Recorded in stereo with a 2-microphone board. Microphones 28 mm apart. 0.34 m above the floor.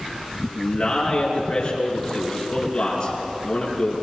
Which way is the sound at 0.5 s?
25° left (ahead or behind).